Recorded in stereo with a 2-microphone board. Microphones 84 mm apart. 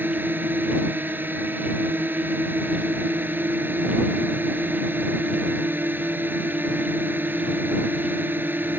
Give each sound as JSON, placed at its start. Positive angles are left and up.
{"t": 0.0, "sound": "a drone", "side_deg": -25}